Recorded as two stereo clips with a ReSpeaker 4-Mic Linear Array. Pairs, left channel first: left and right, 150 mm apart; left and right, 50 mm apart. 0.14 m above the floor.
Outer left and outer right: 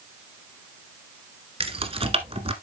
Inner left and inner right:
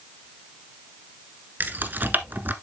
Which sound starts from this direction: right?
Keys jangling, at 1.6 s.